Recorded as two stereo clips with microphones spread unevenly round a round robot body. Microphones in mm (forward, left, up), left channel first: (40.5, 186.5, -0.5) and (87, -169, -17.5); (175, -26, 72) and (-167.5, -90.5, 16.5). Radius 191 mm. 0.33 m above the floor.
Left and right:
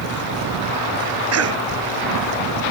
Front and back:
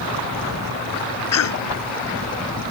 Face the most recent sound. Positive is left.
turn(degrees=-35)